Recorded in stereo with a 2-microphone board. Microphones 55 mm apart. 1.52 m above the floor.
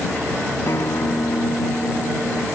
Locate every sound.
0.7 s a guitar: 60° left (ahead or behind)